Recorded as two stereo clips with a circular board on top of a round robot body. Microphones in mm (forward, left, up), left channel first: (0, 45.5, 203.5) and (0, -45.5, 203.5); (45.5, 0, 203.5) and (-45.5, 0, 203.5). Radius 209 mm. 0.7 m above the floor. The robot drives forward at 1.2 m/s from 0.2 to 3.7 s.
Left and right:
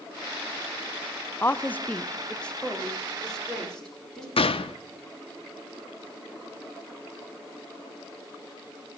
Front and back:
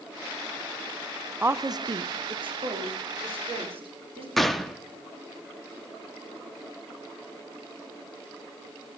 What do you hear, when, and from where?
1.4 s a woman speaking: 130° left, 0.8 m; by 4.3 s 175° left, 3 m
4.4 s a gunshot: 90° left, 0.6 m